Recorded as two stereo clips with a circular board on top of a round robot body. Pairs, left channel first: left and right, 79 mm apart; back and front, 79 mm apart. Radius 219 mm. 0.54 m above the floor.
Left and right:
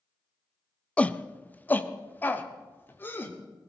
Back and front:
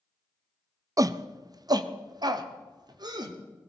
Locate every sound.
1.0 s a shout: 20° left, 0.7 m; by 3.4 s 25° left, 1.8 m